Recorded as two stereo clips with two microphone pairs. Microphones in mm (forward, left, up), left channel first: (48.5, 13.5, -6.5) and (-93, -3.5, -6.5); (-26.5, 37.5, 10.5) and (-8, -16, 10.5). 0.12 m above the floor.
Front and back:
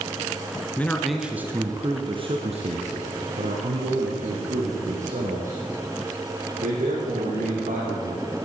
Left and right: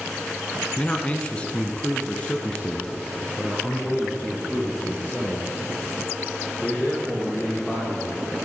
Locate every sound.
0.8 s a man speaking: 65° left, 1.2 m; by 8.1 s 170° right, 6 m